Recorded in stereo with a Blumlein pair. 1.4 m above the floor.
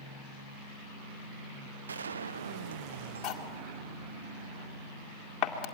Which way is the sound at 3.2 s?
30° left.